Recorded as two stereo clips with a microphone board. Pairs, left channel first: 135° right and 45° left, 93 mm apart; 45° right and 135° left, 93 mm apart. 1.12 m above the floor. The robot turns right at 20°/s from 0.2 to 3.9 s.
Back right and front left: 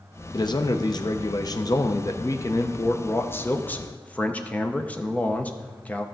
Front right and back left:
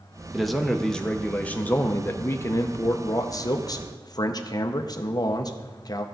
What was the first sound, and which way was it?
A man speaking, 135° right.